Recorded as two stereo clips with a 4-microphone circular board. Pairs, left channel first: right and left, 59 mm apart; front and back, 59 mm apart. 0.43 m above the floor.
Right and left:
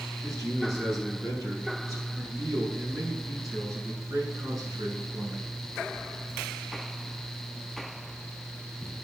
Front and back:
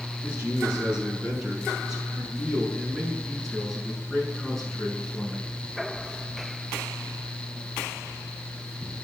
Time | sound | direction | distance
0.2 | a man speaking | 110° left | 6 m